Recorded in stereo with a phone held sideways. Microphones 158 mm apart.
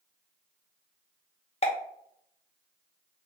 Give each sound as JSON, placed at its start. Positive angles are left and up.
{"t": 1.6, "sound": "a pop", "side_deg": 40, "distance_m": 0.6}